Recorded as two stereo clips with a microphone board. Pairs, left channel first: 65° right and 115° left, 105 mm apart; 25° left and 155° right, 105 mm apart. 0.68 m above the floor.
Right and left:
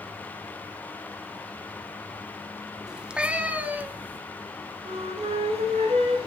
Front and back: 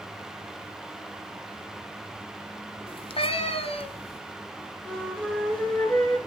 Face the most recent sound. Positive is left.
turn(degrees=105)